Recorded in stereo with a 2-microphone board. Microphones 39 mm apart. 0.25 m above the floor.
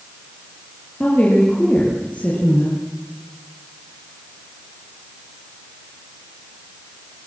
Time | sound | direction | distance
1.0 | a woman speaking | 35° left (ahead or behind) | 7.5 m